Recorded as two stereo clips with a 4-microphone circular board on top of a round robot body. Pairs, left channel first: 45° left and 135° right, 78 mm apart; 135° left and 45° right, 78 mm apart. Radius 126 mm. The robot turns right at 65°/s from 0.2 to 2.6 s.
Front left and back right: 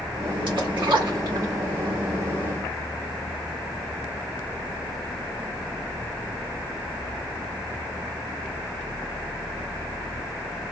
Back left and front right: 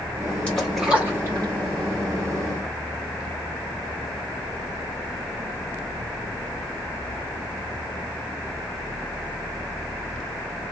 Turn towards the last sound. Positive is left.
turn(degrees=-15)